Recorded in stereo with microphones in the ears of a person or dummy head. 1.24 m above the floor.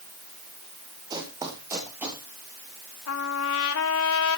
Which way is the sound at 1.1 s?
25° right (ahead or behind).